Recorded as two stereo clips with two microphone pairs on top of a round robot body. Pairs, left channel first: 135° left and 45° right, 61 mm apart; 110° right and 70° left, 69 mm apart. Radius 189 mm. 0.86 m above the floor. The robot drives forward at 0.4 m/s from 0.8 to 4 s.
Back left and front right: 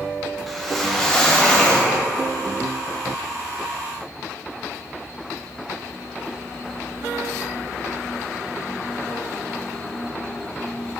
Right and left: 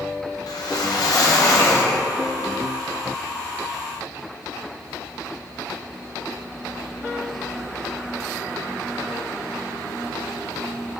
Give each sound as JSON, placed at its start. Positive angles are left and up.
{"t": 0.5, "sound": "a whoosh", "azimuth_deg": -140, "distance_m": 0.6}